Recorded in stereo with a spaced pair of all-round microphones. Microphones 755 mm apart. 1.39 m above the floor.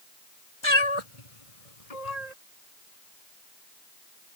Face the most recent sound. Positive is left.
turn(degrees=60)  # may be behind; listen again after turning